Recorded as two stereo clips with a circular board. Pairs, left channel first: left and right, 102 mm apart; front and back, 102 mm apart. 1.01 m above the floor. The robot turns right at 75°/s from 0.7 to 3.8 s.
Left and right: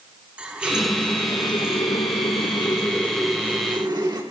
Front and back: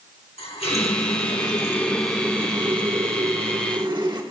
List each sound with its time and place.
0.4 s a running tap: 10° right, 1.7 m; by 4.2 s 140° right, 1.7 m